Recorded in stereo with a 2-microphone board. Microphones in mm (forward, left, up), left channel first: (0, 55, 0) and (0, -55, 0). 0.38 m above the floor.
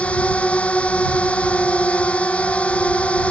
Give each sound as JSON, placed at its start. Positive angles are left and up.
{"t": 0.0, "sound": "a drone", "side_deg": 10}